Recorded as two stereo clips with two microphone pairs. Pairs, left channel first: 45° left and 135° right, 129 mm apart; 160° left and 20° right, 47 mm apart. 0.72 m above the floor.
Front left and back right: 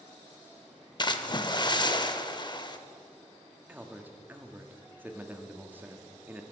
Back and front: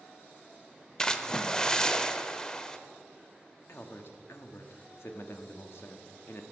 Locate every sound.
1.0 s a splash: 85° left, 0.5 m
3.7 s a man speaking: 150° left, 0.9 m